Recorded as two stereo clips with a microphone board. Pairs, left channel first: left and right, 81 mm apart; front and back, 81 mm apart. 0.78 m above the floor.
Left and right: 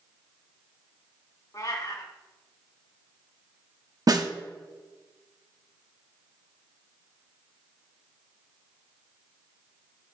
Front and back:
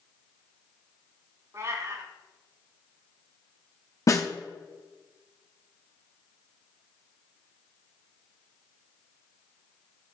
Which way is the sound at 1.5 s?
135° left.